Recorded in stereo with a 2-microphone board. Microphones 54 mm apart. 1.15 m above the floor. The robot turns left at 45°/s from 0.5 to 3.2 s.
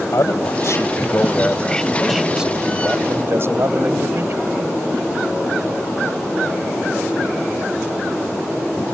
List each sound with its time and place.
0.1 s a man speaking: 70° left; by 4.6 s 50° right